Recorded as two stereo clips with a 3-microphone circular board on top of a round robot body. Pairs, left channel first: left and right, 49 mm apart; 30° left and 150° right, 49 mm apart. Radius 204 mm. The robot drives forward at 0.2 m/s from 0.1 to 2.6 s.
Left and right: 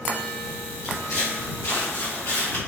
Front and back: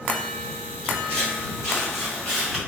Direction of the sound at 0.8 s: 95° left.